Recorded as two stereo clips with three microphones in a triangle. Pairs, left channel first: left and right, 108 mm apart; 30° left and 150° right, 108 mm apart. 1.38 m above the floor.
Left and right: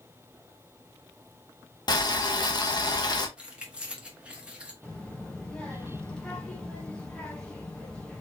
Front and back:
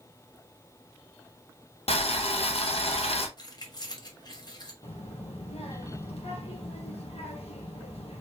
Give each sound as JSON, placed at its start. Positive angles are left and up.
{"t": 1.9, "sound": "boiling", "azimuth_deg": 45, "distance_m": 0.9}
{"t": 3.4, "sound": "keys jangling", "azimuth_deg": -15, "distance_m": 1.1}
{"t": 4.8, "sound": "a child speaking", "azimuth_deg": 5, "distance_m": 1.1}